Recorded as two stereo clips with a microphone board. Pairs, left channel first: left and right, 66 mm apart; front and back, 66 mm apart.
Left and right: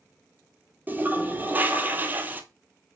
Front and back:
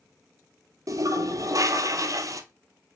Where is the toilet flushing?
145° right, 0.7 m.